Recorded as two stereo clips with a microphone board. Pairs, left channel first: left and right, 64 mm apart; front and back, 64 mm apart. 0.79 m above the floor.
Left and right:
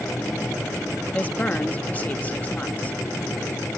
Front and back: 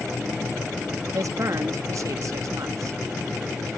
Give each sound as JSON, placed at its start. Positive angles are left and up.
{"t": 1.1, "sound": "a woman speaking", "azimuth_deg": 155}